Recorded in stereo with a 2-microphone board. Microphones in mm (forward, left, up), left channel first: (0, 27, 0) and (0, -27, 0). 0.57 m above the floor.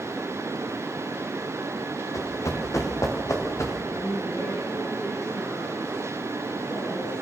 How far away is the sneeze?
I don't hear a sneeze.